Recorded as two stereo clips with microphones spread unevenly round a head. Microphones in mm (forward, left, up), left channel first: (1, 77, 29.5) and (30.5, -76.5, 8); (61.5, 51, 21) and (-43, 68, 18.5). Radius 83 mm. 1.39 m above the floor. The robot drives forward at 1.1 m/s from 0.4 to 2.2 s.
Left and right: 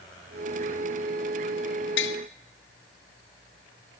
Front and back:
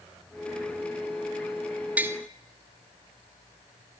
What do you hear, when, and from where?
2.0 s tapping: 95° left, 0.9 m; by 2.2 s 110° left, 0.9 m